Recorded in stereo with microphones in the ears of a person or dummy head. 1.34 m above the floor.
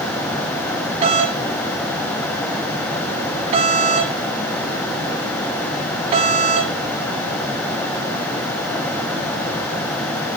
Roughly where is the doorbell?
Right.